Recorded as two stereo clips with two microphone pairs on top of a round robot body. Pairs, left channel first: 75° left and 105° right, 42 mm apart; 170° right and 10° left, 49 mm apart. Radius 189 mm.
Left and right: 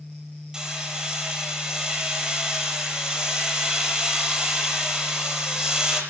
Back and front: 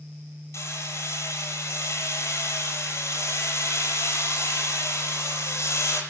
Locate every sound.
0.5 s hammering: straight behind, 6.5 m